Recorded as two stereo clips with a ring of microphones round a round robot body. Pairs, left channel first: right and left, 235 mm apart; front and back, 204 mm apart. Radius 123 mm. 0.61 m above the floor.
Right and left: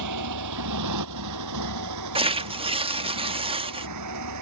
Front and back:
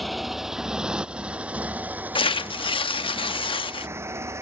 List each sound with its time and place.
0.0 s a motorcycle: 90° left; by 4.4 s 105° left
2.1 s tearing paper: 45° left